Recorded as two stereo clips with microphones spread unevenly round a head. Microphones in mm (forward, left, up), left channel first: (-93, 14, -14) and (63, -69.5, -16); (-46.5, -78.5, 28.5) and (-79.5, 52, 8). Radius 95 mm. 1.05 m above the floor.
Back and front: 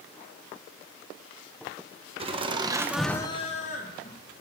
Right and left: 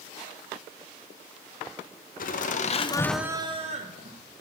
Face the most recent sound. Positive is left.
turn(degrees=105)